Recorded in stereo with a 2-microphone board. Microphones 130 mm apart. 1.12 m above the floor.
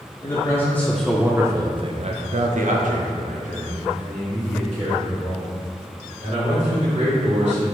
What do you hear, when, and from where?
0.2 s a man speaking: 25° left (ahead or behind), 0.9 m; by 7.6 s 65° right (ahead or behind), 3 m